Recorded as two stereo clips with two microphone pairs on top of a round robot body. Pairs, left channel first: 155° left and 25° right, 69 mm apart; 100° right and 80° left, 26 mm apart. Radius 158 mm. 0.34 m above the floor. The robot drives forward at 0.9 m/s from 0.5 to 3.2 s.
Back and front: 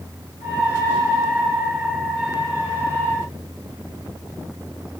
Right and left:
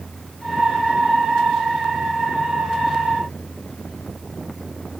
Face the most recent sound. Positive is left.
No sound to turn to.